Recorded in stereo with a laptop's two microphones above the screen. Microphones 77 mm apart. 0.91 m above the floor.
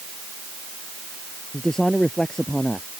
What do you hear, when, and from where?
1.5 s a man speaking: 5° left (ahead or behind)